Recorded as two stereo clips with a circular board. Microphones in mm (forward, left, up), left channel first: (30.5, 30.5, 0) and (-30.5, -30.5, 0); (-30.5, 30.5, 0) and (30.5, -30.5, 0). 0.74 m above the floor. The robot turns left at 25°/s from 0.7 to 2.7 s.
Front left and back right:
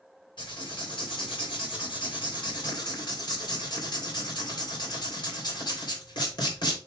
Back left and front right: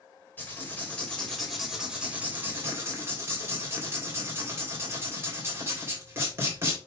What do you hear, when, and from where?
0.4 s writing: 65° left, 3.5 m; by 6.8 s 15° left, 3.5 m